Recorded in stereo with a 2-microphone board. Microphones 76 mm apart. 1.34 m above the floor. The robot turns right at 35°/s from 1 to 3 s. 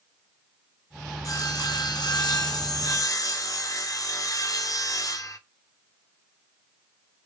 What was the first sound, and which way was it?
Sawing, 60° left.